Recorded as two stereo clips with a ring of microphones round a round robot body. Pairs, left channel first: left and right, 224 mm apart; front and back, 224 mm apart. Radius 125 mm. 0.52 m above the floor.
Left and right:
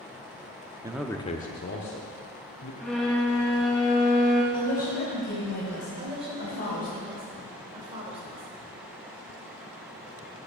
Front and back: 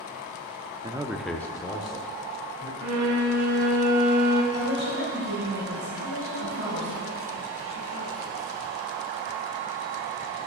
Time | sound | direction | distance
0.8 | a man speaking | 140° right | 0.6 m
2.8 | a violin | straight behind | 0.9 m
4.5 | a woman speaking | 145° left | 3 m
6.0 | a woman speaking | 25° right | 2 m